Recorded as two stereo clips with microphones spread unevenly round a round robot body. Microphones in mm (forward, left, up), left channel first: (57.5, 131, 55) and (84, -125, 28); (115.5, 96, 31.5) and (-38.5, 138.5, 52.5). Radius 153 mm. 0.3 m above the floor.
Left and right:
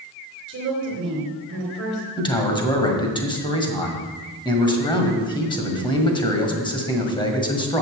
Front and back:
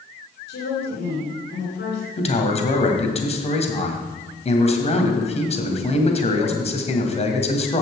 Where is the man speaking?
20° left, 1.9 m.